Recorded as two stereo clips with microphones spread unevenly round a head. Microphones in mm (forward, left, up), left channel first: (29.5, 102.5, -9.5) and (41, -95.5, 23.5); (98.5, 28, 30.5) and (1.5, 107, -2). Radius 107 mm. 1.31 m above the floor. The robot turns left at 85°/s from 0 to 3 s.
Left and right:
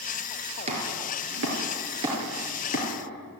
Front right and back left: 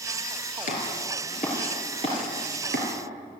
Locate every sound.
0.7 s chopping: 30° right, 5.5 m; by 2.9 s 140° left, 5.5 m